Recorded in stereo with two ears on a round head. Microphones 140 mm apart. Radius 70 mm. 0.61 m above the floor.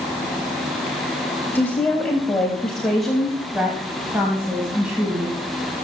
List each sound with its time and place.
1.6 s a woman speaking: 10° left (ahead or behind), 3.5 m; by 5.4 s 10° right (ahead or behind), 5.5 m